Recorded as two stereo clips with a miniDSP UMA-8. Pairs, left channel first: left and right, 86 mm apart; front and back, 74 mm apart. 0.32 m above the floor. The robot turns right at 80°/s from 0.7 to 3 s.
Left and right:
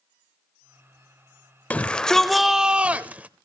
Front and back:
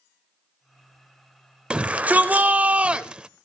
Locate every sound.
1.7 s a shout: 130° left, 0.8 m; by 3.3 s 130° right, 0.8 m